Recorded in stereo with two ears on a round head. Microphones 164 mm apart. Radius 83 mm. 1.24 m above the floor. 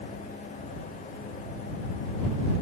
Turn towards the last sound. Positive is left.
No sound to turn to.